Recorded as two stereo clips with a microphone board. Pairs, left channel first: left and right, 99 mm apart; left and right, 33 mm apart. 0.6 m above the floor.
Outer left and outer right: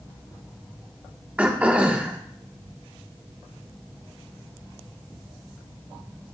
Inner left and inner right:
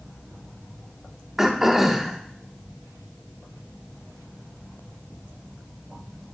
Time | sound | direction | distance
1.4 | throat clearing | 15° right (ahead or behind) | 1.2 m